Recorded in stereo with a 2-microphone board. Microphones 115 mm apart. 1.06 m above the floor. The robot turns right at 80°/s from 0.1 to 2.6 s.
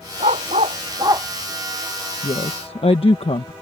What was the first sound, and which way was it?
A dog barking, 70° right (ahead or behind).